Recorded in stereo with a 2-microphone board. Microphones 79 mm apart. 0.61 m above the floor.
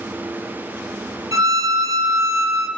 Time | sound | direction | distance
1.3 | a violin | 45° right (ahead or behind) | 0.8 m